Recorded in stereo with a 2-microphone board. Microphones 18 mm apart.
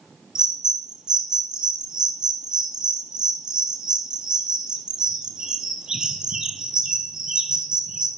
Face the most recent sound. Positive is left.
turn(degrees=-45)  # may be behind; listen again after turning